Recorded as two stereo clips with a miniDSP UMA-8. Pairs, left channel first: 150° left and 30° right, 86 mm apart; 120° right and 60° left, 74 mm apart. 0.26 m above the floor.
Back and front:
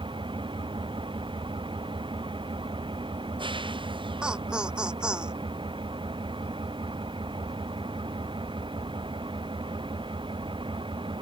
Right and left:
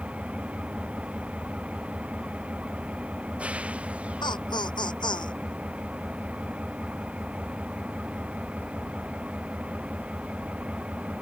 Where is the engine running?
10° right.